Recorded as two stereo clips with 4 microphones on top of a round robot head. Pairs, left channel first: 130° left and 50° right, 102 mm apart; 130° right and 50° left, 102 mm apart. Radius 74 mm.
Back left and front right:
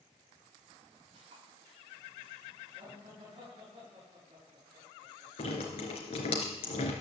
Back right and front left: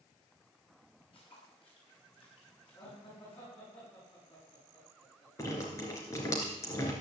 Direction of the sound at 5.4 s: 165° left.